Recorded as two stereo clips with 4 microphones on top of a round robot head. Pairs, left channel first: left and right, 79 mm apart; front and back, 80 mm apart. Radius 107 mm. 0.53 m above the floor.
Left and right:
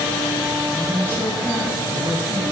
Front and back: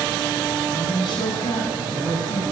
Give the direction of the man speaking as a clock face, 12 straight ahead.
11 o'clock.